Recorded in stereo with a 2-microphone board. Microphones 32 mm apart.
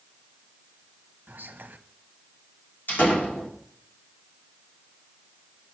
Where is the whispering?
75° right (ahead or behind), 0.8 m.